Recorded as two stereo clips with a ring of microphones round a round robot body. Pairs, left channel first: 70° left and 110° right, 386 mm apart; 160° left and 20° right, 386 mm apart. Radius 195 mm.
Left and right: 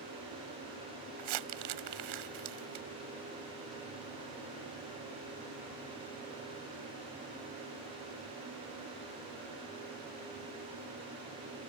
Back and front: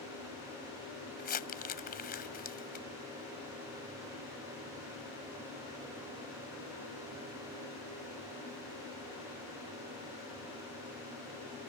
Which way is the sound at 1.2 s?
135° right.